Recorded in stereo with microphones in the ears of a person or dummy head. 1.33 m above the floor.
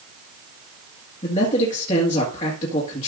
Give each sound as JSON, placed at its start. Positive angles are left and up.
{"t": 1.2, "sound": "a man speaking", "side_deg": 35, "distance_m": 1.9}